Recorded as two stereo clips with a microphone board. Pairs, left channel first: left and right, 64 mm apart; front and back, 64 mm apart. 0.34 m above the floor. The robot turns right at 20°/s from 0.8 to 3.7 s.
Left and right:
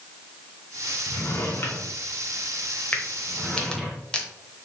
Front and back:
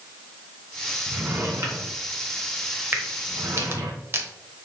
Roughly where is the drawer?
Behind left.